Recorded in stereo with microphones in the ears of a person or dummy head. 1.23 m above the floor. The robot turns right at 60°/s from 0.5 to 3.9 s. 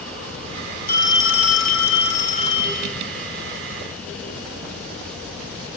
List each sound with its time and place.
0.9 s a phone ringing: 50° left, 3 m; by 2.9 s 170° left, 3 m